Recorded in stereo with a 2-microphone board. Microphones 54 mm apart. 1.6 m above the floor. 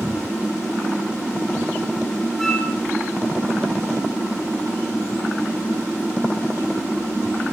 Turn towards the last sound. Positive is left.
turn(degrees=5)  # may be behind; listen again after turning